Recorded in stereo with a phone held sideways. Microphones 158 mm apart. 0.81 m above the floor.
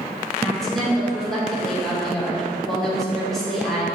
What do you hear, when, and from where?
0.4 s a woman speaking: centre (ahead or behind), 3 m